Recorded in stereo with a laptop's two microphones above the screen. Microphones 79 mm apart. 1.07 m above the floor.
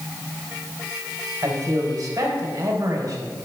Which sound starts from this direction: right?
A man speaking, at 1.4 s.